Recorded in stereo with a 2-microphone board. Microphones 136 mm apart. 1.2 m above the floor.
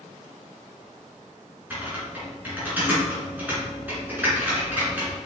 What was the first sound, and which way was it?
Typing on a keyboard, 15° right (ahead or behind).